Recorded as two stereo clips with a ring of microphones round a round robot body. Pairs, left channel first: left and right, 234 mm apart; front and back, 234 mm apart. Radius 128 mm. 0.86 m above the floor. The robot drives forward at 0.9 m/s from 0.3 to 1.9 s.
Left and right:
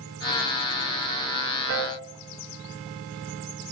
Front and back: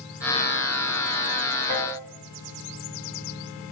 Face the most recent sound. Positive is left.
turn(degrees=-120)